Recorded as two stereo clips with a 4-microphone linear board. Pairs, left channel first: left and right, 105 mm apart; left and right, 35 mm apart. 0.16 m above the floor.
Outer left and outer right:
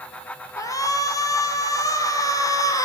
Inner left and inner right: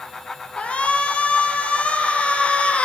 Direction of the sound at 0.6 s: 30° left (ahead or behind).